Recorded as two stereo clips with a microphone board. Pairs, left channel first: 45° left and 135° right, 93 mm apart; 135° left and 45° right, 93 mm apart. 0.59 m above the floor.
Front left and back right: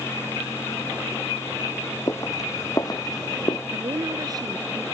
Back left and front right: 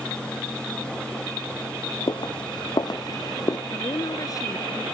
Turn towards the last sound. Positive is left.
turn(degrees=180)